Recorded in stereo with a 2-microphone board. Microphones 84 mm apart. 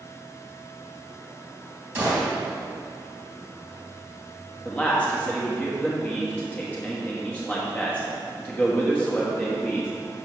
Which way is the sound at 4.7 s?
15° left (ahead or behind).